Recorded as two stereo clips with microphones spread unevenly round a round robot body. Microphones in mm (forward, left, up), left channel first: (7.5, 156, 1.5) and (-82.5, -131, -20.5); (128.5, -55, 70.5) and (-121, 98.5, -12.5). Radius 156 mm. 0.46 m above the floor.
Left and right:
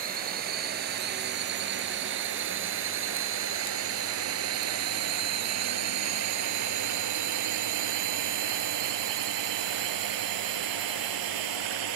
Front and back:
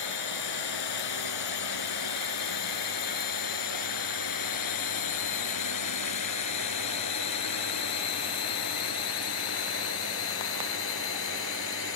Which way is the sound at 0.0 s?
45° right.